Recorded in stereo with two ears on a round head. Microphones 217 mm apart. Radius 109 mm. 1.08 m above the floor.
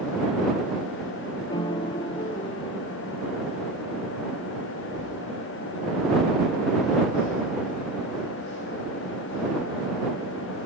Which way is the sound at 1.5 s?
20° left (ahead or behind).